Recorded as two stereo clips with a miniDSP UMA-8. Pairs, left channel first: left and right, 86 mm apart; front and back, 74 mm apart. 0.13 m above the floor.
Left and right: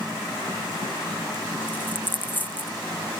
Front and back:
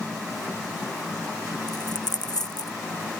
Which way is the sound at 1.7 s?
20° left.